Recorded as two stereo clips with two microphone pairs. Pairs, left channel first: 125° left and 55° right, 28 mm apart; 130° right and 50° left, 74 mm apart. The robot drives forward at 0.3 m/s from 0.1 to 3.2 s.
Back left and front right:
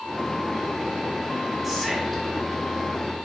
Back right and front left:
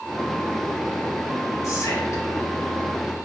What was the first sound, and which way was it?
Whispering, 155° right.